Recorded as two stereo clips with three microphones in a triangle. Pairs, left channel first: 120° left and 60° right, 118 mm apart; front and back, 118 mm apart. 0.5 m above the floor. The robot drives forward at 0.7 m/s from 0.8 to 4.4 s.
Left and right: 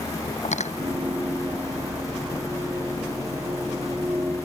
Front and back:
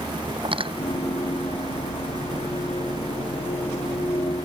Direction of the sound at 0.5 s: 135° left.